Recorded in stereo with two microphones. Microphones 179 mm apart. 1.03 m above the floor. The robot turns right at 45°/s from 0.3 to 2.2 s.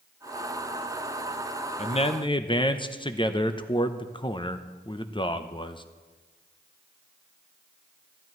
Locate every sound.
1.8 s a man speaking: 40° left (ahead or behind), 0.6 m; by 5.8 s 30° left (ahead or behind), 0.6 m